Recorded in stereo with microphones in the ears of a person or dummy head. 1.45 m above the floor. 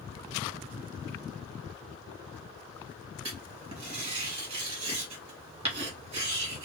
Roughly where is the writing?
Right.